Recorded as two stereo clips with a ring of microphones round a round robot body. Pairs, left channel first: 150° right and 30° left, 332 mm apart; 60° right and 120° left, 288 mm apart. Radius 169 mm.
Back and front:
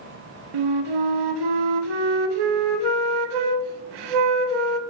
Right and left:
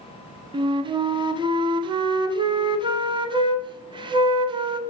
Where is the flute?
45° left, 0.6 m.